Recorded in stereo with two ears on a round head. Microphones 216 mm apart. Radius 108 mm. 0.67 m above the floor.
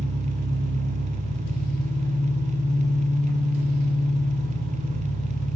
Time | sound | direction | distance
0.0 | an engine running | 35° right (ahead or behind) | 0.9 m